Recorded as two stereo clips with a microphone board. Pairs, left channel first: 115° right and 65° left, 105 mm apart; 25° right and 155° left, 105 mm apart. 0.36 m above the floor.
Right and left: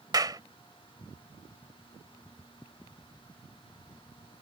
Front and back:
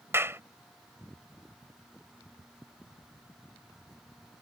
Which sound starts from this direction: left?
A clap, at 0.1 s.